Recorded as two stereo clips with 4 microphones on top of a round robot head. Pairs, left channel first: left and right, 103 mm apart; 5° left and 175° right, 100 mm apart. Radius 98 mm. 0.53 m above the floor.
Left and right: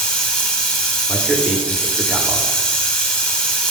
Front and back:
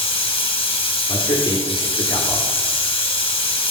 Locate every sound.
0.0 s running water: 15° left, 1.2 m
1.1 s a man speaking: 10° right, 1.0 m